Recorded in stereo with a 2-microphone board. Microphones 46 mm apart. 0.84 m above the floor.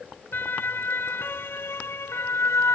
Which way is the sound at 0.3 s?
45° left (ahead or behind).